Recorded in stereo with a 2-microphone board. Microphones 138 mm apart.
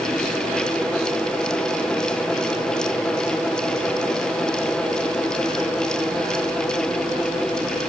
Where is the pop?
I don't hear a pop.